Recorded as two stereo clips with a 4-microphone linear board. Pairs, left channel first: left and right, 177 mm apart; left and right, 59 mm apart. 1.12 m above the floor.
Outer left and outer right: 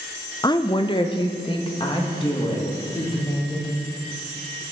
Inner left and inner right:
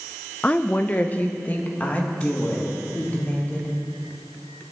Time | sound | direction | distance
0.4 | a woman speaking | 25° left (ahead or behind) | 0.5 m